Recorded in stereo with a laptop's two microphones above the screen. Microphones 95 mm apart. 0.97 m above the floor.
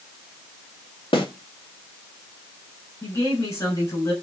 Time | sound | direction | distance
1.1 | a snare drum | 70° left (ahead or behind) | 2 m
3.0 | a woman speaking | 40° left (ahead or behind) | 6 m